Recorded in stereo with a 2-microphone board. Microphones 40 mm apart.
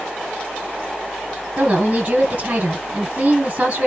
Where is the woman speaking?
30° right (ahead or behind), 1.3 m.